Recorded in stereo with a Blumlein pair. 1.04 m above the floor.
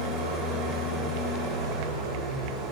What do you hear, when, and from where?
0.0 s an engine running: 25° right, 4.5 m